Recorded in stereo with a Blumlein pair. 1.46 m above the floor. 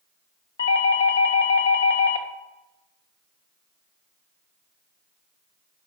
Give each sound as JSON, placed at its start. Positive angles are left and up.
{"t": 0.6, "sound": "a doorbell", "azimuth_deg": 70, "distance_m": 0.6}